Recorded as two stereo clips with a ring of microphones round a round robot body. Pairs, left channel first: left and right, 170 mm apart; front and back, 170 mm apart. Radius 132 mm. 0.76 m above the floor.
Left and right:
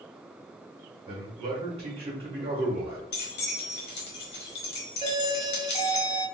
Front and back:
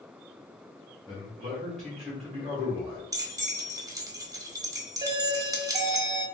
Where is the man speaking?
90° right, 1.2 m.